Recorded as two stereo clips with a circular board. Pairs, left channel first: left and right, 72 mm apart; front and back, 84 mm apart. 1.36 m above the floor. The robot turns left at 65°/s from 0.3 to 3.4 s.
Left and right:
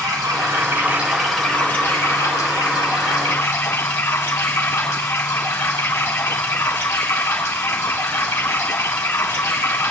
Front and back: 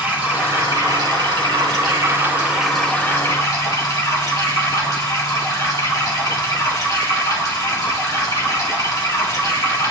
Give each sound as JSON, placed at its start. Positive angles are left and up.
{"t": 0.0, "sound": "running water", "azimuth_deg": -115, "distance_m": 2.5}